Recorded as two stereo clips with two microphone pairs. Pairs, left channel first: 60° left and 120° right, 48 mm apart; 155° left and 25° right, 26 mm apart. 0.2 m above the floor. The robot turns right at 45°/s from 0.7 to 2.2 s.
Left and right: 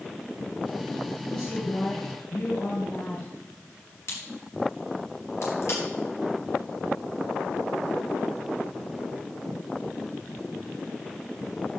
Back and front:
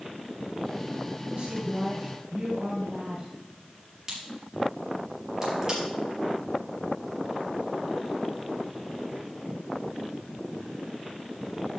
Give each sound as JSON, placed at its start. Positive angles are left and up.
{"t": 1.2, "sound": "a woman speaking", "azimuth_deg": -15, "distance_m": 4.0}
{"t": 4.1, "sound": "a crack", "azimuth_deg": 45, "distance_m": 5.5}